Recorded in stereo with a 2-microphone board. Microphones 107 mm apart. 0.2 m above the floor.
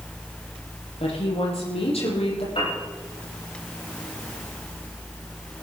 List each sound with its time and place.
1.0 s a woman speaking: 80° left, 8 m
2.5 s a piano: 70° left (ahead or behind), 9.5 m